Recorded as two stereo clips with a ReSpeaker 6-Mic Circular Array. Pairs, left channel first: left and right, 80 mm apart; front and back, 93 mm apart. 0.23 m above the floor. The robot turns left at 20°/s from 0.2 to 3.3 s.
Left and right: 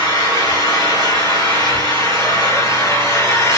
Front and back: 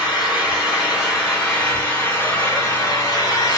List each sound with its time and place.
0.0 s an engine running: 105° left, 1.6 m; by 3.6 s 40° left, 1.6 m